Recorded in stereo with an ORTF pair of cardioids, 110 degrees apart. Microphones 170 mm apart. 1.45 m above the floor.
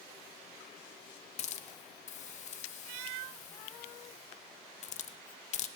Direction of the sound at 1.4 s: 45° left.